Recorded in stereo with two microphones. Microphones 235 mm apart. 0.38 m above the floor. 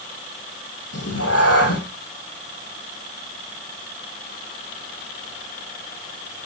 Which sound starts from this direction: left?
A cat meowing, at 0.9 s.